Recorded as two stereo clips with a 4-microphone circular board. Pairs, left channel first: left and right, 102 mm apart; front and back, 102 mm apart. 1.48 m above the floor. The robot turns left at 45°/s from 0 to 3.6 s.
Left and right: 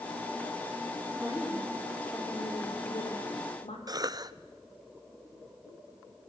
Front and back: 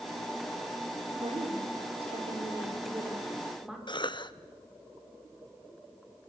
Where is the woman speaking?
155° right, 4.5 m; by 3.8 s 95° left, 4.5 m.